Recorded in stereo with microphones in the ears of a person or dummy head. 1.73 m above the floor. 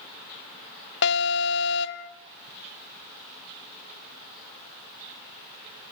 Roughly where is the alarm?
Left.